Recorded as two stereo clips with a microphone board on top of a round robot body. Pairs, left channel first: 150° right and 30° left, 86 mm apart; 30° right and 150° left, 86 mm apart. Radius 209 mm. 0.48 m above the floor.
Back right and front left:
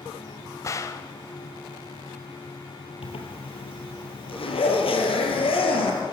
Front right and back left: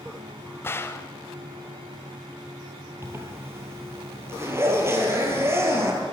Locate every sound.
0.6 s a gunshot: 95° right, 0.6 m
3.0 s a zipper: 150° right, 3.5 m